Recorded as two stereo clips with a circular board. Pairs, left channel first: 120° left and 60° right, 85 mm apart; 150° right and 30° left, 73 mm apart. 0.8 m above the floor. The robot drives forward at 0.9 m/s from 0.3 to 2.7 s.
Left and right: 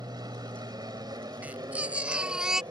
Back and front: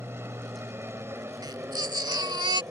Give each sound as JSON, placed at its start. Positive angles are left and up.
{"t": 0.0, "sound": "an aircraft", "azimuth_deg": -25}
{"t": 1.4, "sound": "a baby crying", "azimuth_deg": 10}